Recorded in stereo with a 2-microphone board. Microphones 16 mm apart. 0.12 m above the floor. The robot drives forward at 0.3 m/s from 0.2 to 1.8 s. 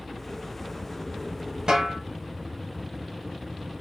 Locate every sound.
1.7 s a snare drum: 50° right (ahead or behind), 1.0 m